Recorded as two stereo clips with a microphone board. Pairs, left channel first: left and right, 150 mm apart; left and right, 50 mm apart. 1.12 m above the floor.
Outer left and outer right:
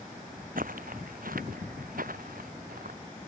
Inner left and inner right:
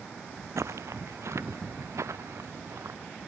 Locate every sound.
0.6 s footsteps: 70° right (ahead or behind)